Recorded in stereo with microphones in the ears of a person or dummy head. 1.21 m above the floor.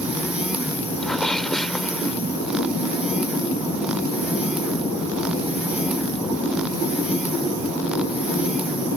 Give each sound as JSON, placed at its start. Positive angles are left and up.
{"t": 1.0, "sound": "a sneeze", "side_deg": 5}